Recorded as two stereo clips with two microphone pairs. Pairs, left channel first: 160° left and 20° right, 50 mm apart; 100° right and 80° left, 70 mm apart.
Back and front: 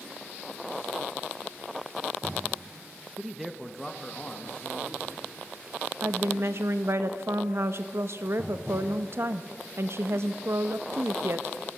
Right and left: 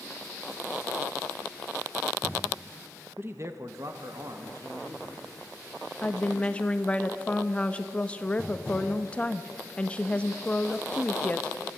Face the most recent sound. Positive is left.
turn(degrees=-35)